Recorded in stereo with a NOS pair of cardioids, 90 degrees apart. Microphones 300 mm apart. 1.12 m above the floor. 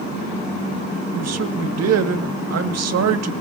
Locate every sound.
1.1 s a man speaking: 55° right, 1.6 m